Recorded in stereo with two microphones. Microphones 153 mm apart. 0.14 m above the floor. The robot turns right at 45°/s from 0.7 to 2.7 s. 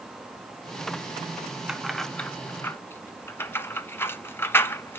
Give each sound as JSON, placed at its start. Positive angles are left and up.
{"t": 1.7, "sound": "keys jangling", "side_deg": -5, "distance_m": 0.8}